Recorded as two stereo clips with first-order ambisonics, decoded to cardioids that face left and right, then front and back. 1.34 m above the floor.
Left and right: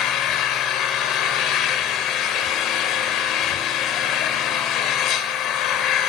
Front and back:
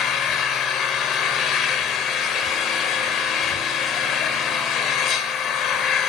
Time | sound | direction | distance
0.0 | an engine running | 50° left | 2.5 m